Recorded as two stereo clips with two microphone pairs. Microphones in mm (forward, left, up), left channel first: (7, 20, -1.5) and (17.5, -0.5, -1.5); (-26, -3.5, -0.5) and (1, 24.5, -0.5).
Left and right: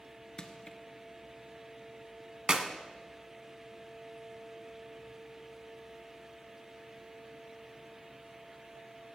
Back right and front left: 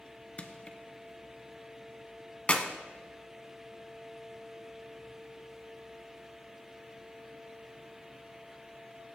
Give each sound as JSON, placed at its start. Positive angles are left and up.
{"t": 0.4, "sound": "crushing", "azimuth_deg": 170, "distance_m": 0.9}
{"t": 2.5, "sound": "a clap", "azimuth_deg": -100, "distance_m": 1.1}